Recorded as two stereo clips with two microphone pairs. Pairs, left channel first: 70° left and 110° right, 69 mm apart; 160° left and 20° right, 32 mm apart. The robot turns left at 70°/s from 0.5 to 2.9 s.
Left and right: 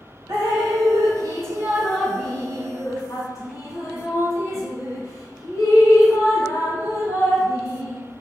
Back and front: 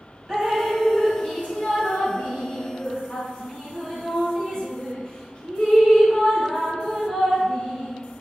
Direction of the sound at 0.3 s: 95° right.